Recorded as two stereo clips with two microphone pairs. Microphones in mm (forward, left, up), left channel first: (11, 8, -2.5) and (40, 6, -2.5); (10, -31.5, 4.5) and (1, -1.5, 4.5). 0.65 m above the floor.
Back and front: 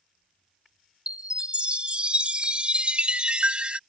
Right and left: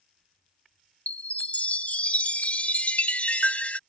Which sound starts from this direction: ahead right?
A chime, at 1.1 s.